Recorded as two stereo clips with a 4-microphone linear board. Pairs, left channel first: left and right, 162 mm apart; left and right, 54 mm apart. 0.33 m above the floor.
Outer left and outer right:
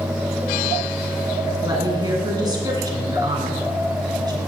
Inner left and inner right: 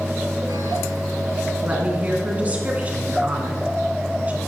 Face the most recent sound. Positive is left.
turn(degrees=-25)  # may be behind; listen again after turning